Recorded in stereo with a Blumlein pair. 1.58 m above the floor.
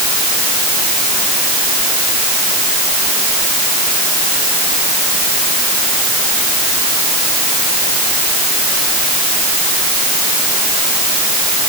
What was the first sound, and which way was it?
Only background noise.